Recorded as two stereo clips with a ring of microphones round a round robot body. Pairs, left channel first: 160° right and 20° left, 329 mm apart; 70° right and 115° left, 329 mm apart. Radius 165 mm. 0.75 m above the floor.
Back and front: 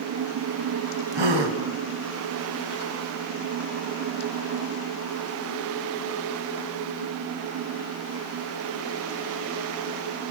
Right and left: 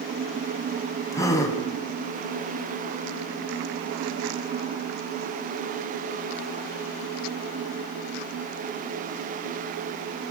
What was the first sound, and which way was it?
A gasp, 15° left.